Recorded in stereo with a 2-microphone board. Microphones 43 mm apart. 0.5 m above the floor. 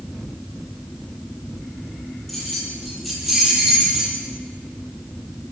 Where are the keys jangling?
Centre (ahead or behind), 9 m; by 4.2 s 10° right (ahead or behind), 10 m.